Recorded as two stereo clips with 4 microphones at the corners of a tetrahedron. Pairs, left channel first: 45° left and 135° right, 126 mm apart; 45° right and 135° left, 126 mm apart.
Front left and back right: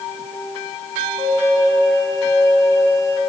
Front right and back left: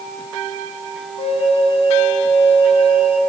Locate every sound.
1.2 s a flute: 15° right, 1.6 m